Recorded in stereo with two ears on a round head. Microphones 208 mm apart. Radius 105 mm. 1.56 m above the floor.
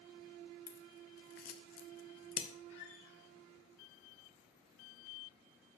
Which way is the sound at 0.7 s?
40° left (ahead or behind).